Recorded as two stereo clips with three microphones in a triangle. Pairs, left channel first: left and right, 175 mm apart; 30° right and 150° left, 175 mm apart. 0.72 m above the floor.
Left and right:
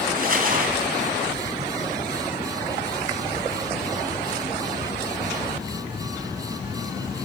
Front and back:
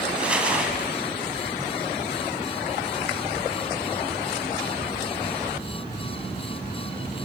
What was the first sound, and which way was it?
Crumpling, 125° right.